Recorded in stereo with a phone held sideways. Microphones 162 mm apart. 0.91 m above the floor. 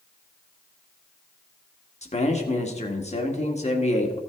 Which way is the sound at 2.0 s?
45° left (ahead or behind).